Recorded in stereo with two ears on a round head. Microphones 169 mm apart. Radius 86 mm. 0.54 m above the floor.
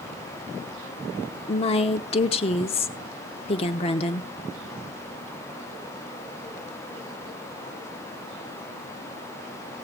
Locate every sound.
1.5 s a woman speaking: 30° left (ahead or behind), 1.1 m